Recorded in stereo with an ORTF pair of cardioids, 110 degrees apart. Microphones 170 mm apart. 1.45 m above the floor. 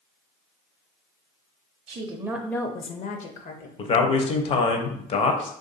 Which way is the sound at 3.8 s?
35° left.